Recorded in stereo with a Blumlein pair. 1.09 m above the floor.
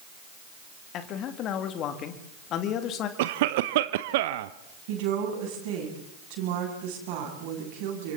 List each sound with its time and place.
0.9 s a man speaking: 35° left, 2.5 m
3.2 s a cough: 50° right, 0.7 m
4.9 s a woman speaking: 45° right, 7.5 m